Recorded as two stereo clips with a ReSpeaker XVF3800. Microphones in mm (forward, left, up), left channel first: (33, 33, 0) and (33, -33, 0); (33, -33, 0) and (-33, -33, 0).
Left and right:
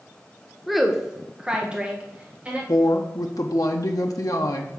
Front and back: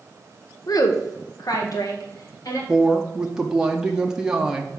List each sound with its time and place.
0.7 s a woman speaking: straight ahead, 1.0 m; by 2.6 s 20° right, 2.5 m
2.7 s a woman speaking: 105° left, 0.7 m